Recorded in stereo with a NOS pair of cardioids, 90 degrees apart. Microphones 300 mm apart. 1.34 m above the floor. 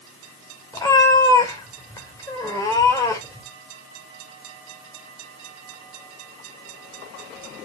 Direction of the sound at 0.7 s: 10° left.